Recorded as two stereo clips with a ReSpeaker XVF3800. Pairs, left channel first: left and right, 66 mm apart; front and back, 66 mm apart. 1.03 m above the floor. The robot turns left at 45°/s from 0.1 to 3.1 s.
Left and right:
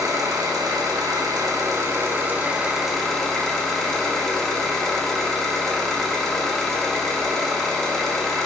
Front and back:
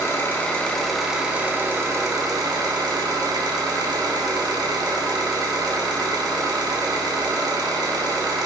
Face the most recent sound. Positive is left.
turn(degrees=175)